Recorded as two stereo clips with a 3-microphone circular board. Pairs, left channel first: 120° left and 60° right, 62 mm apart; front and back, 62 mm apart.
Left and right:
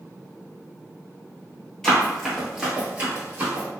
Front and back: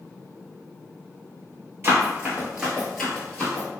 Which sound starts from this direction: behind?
Running footsteps, at 1.8 s.